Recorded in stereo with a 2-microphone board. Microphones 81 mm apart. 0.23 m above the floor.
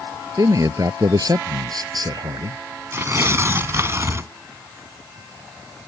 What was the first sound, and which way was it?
A man speaking, 45° right (ahead or behind).